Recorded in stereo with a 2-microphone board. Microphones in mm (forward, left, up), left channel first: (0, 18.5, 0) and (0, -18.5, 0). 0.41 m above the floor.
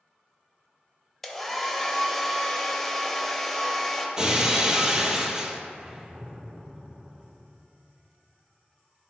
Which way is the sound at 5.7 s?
20° right (ahead or behind).